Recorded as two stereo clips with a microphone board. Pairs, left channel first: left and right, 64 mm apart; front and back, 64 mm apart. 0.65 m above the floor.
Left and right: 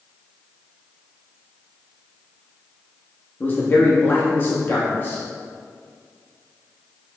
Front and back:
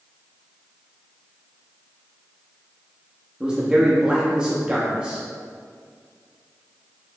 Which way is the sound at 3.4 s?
115° left.